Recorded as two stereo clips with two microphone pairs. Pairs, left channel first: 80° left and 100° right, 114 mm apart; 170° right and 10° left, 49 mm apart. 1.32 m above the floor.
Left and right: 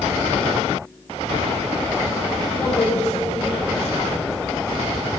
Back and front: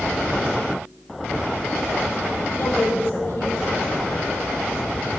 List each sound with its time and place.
2.5 s a woman speaking: 135° left, 4 m; by 4.3 s 140° left, 5.5 m